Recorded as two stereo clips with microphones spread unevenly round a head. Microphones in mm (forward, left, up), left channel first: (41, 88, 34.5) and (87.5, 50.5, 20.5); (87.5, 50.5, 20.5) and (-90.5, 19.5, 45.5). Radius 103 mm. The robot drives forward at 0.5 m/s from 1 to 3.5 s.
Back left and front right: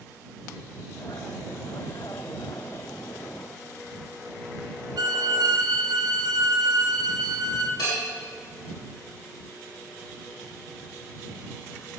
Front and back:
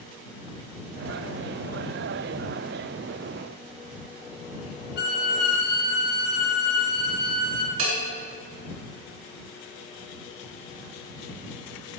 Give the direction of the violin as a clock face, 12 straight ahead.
1 o'clock.